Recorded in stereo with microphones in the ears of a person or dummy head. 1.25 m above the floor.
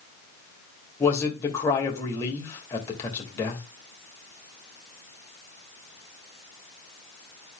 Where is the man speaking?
25° left (ahead or behind), 2.5 m.